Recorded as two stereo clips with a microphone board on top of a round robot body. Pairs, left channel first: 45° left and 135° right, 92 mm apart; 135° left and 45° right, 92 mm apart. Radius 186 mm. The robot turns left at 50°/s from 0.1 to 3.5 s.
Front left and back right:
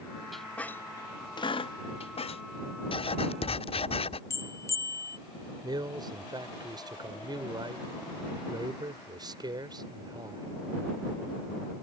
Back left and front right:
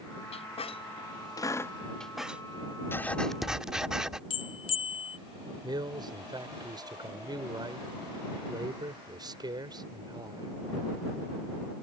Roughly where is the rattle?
No rattle in this recording.